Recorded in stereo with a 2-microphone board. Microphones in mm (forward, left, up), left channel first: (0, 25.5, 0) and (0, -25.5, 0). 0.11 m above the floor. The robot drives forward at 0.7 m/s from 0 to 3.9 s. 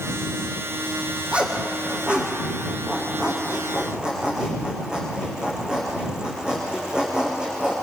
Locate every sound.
1.3 s a zipper: 25° right (ahead or behind), 4 m; by 7.7 s 15° right (ahead or behind), 5.5 m